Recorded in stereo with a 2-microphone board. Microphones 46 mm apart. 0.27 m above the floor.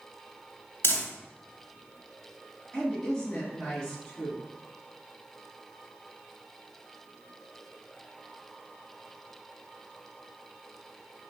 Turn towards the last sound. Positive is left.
turn(degrees=15)  # may be behind; listen again after turning